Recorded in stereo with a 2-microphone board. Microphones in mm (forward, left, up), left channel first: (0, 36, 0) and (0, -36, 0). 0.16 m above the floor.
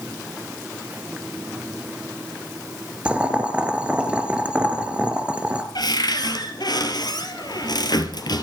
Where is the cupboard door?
65° left (ahead or behind), 3 m.